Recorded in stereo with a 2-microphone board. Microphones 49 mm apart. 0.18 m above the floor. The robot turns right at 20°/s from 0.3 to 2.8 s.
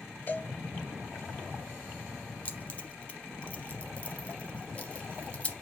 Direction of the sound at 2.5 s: 30° left (ahead or behind).